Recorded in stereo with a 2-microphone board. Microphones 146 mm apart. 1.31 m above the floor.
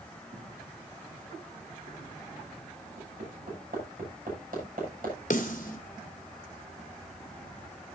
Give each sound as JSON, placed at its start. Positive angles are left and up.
{"t": 0.3, "sound": "footsteps", "side_deg": -65, "distance_m": 6.0}
{"t": 3.0, "sound": "hammering", "side_deg": -75, "distance_m": 7.5}
{"t": 5.3, "sound": "a snare drum", "side_deg": 65, "distance_m": 2.0}